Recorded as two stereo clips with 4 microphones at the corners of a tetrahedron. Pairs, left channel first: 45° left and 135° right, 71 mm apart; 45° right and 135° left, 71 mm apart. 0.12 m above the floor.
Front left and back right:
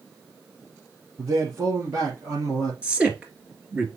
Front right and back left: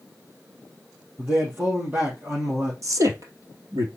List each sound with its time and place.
1.2 s a man speaking: 170° right, 2.5 m
2.8 s a man speaking: 155° left, 2 m